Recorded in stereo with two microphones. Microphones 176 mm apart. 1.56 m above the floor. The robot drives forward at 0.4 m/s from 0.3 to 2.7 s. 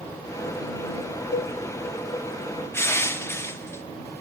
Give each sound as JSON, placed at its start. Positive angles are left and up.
{"t": 1.3, "sound": "a cowbell", "side_deg": 85, "distance_m": 0.5}
{"t": 2.7, "sound": "crushing", "side_deg": 15, "distance_m": 1.5}